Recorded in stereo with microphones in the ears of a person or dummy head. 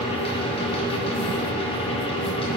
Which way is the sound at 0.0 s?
30° left (ahead or behind).